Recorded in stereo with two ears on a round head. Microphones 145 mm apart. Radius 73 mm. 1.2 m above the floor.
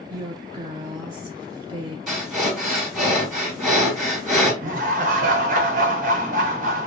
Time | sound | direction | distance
0.1 | a woman speaking | 20° right (ahead or behind) | 0.5 m
2.1 | breathing | centre (ahead or behind) | 1.6 m
4.6 | laughter | 55° right (ahead or behind) | 0.9 m